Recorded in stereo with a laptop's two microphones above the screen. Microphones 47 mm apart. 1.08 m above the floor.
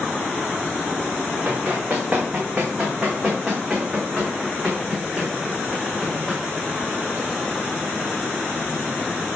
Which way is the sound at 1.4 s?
20° right (ahead or behind).